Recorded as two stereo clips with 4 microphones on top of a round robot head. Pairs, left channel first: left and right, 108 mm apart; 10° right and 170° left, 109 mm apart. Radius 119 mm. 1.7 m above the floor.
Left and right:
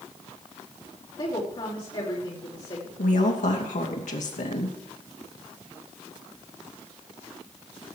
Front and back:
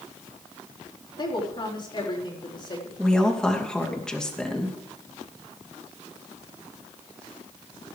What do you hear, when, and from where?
1.2 s a woman speaking: 35° left, 4 m
3.0 s a woman speaking: 75° left, 2.5 m